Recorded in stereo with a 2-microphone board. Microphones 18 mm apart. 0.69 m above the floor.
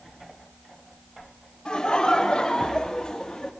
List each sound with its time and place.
1.6 s laughter: 55° left (ahead or behind), 1.7 m; by 3.5 s 40° left (ahead or behind), 1.1 m